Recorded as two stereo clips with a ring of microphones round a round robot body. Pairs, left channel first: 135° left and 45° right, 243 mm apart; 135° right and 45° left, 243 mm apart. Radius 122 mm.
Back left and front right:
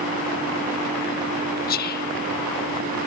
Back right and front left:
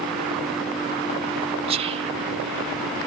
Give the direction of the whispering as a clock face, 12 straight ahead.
9 o'clock.